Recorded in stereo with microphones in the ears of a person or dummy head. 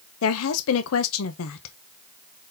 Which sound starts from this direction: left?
A woman speaking, at 0.2 s.